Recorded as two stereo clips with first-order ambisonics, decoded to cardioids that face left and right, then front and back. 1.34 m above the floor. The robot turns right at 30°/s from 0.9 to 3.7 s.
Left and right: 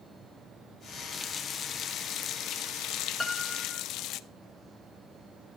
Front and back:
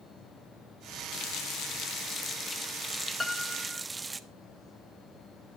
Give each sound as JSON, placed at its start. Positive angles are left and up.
{"t": 1.1, "sound": "a running tap", "azimuth_deg": 25, "distance_m": 0.6}
{"t": 3.2, "sound": "a piano", "azimuth_deg": 45, "distance_m": 0.6}